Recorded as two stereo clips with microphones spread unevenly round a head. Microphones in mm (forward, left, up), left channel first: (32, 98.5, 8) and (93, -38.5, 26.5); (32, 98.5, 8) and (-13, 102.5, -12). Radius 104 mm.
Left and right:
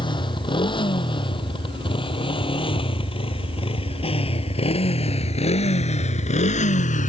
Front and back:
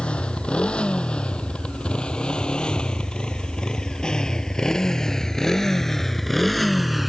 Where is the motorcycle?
55° left; by 7.1 s 80° left.